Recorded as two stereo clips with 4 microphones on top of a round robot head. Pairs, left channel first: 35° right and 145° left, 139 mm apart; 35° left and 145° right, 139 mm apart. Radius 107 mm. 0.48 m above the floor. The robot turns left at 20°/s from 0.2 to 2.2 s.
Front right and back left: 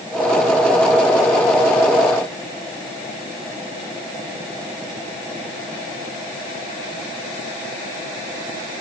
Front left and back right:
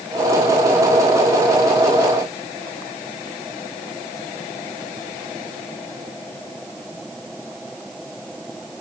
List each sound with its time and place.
Only background noise.